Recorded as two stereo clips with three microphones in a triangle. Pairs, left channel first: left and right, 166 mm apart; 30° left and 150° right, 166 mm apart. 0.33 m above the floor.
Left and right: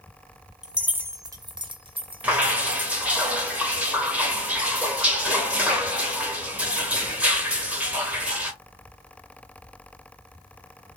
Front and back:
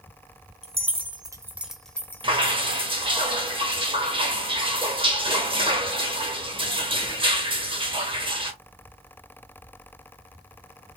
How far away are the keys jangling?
About 0.7 m.